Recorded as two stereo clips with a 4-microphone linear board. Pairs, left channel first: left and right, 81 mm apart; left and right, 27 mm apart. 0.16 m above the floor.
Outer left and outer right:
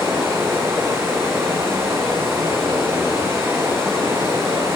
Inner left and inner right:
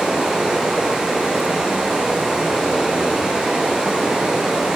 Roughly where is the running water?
Right.